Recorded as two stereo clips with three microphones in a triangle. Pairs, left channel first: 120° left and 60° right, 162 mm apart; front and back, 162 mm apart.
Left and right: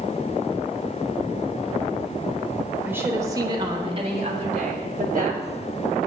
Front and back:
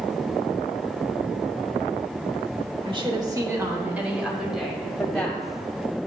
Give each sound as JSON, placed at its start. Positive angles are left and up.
{"t": 2.9, "sound": "a woman speaking", "azimuth_deg": -135, "distance_m": 1.2}